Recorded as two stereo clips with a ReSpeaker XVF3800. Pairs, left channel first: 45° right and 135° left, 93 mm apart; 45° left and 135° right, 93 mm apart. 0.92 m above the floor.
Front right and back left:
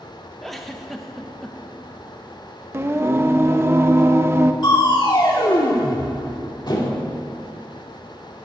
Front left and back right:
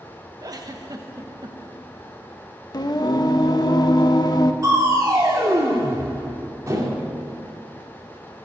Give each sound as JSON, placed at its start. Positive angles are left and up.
{"t": 0.4, "sound": "a giggle", "azimuth_deg": -130, "distance_m": 1.0}
{"t": 2.7, "sound": "singing", "azimuth_deg": 75, "distance_m": 0.6}
{"t": 4.6, "sound": "crushing", "azimuth_deg": -80, "distance_m": 1.9}